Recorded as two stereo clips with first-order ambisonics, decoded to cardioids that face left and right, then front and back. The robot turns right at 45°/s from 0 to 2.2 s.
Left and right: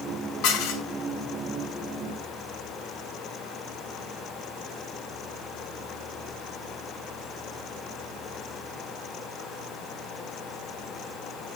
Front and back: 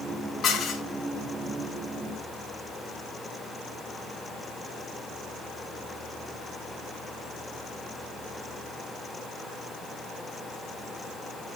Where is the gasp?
No gasp in this recording.